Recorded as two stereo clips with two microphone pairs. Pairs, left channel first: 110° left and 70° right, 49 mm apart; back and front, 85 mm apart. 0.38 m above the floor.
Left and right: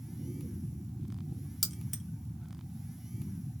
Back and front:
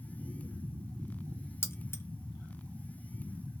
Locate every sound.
1.6 s keys jangling: 175° right, 0.6 m